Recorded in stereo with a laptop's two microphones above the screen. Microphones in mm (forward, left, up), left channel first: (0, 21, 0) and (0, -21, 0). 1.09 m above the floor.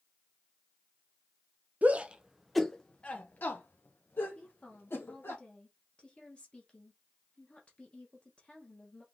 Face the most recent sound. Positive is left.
turn(degrees=30)  # may be behind; listen again after turning